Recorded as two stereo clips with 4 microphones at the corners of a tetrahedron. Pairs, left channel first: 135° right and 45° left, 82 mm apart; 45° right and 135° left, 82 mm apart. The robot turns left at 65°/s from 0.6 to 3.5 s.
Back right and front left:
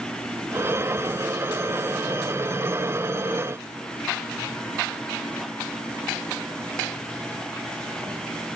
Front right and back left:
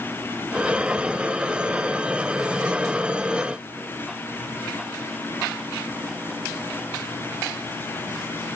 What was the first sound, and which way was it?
Only background noise.